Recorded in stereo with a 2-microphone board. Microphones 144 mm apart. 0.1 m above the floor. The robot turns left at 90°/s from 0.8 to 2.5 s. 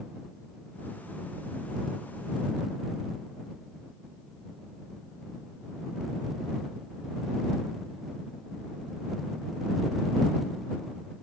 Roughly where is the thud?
No thud in this recording.